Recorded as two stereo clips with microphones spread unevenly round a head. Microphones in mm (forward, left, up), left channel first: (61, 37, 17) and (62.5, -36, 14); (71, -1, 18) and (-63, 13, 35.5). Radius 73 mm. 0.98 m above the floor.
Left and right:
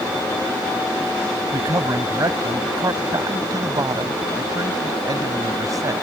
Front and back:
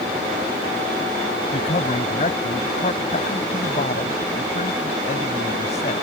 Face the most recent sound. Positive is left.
turn(degrees=-50)